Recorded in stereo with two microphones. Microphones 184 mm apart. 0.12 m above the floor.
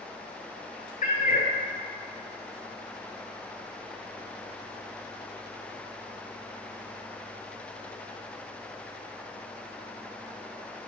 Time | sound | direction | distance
1.0 | a cat meowing | 50° left (ahead or behind) | 0.6 m